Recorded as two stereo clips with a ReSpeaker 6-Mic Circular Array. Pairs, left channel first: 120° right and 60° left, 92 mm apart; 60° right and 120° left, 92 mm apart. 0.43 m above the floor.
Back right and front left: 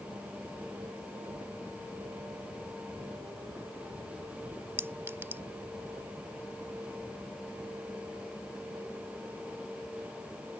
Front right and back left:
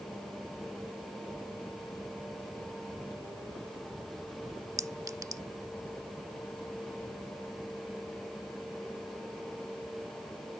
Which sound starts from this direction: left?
A clink, at 4.8 s.